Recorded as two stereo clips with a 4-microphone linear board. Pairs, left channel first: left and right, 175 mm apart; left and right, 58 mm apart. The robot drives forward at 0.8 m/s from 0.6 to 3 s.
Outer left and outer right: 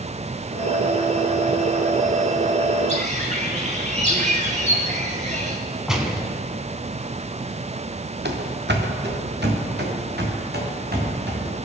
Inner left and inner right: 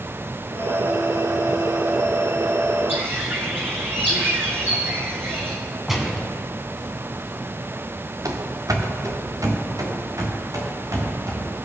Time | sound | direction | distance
2.9 | a bird | 40° right (ahead or behind) | 1.9 m
5.9 | a gunshot | 5° right (ahead or behind) | 1.6 m
8.2 | running footsteps | 85° right | 1.5 m